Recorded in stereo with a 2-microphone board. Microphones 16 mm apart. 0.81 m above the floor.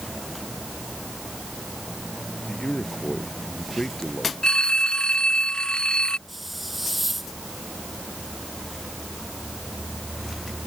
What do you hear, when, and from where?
2.5 s a man speaking: 55° left (ahead or behind)
4.4 s a phone ringing: 65° left (ahead or behind)
6.3 s a hiss: 10° right (ahead or behind)